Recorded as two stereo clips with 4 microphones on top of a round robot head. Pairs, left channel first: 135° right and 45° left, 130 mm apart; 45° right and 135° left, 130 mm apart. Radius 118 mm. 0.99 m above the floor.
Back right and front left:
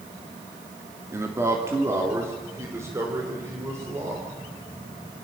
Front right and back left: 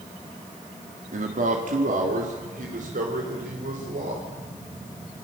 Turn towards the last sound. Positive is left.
turn(degrees=115)